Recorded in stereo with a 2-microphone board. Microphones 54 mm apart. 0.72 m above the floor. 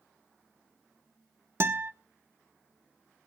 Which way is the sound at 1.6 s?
55° right (ahead or behind).